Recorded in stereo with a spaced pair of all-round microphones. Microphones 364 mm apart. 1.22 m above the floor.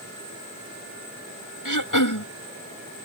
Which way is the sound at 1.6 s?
60° left (ahead or behind).